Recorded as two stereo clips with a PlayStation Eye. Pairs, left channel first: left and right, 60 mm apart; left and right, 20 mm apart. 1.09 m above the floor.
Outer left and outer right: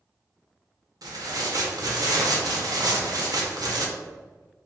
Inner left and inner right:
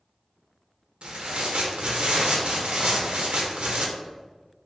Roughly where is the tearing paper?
Right.